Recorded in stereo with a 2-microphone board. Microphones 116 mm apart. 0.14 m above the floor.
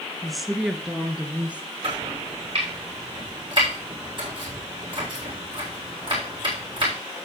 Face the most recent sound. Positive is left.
turn(degrees=-40)  # may be behind; listen again after turning